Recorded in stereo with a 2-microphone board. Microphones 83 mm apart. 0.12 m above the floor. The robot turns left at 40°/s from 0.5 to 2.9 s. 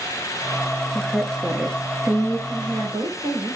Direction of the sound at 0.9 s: 10° left.